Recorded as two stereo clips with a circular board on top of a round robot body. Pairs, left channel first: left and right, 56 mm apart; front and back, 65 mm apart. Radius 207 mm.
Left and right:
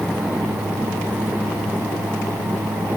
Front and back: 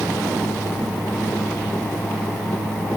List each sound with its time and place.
Only background noise.